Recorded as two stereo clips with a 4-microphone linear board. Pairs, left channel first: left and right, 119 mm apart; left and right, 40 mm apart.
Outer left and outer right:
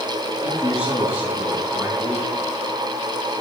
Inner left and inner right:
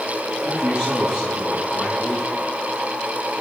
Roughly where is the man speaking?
Left.